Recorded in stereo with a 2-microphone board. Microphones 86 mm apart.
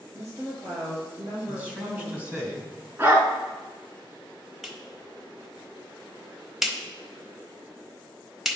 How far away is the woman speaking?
About 4 m.